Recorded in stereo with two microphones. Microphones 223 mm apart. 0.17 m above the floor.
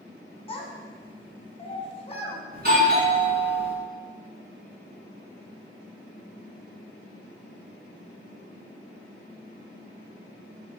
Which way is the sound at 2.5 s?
45° right (ahead or behind).